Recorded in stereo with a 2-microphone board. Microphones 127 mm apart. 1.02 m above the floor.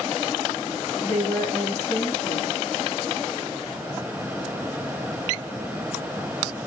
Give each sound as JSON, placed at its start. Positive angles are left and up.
{"t": 1.0, "sound": "a woman speaking", "side_deg": 40, "distance_m": 1.2}